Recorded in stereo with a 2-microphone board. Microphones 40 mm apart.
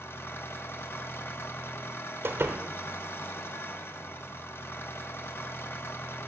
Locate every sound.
0.0 s an engine running: 75° left (ahead or behind), 0.9 m
2.2 s a door slam: 75° right (ahead or behind), 0.9 m